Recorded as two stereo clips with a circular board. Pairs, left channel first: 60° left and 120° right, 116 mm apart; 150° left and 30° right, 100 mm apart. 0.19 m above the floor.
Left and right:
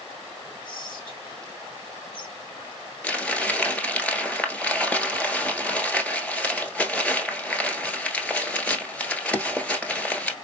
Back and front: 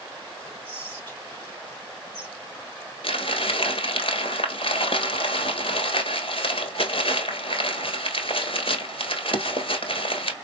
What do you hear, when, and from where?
0.7 s whispering: 85° left, 2.5 m
3.0 s crumpling: 140° left, 1.2 m